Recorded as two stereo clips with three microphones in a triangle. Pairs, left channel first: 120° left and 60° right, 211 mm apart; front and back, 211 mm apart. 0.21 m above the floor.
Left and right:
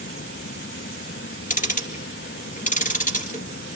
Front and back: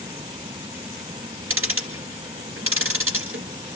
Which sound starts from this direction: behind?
Ticking, at 1.5 s.